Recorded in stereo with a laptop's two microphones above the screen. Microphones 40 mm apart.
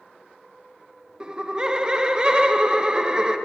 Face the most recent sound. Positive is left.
turn(degrees=-20)  # may be behind; listen again after turning